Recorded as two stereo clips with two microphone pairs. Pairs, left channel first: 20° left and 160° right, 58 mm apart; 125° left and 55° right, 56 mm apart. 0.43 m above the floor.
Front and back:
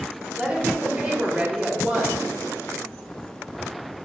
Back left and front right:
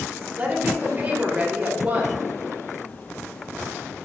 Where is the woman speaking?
100° right, 1.6 m.